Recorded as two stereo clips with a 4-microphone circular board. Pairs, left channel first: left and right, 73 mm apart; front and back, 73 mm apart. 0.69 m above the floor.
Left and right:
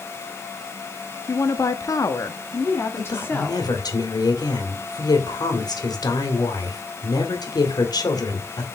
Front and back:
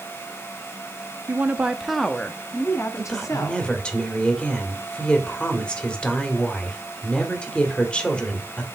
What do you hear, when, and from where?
1.3 s a woman speaking: 125° left, 1.0 m; by 3.7 s 30° left, 1.5 m
3.0 s a woman speaking: 75° left, 1.9 m